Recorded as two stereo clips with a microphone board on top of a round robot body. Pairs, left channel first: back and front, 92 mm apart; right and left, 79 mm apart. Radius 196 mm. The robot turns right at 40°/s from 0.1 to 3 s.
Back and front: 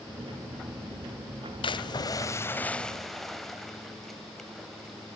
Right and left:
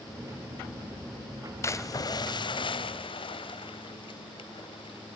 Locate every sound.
1.6 s a splash: 145° right, 0.7 m; by 5.2 s 90° right, 0.7 m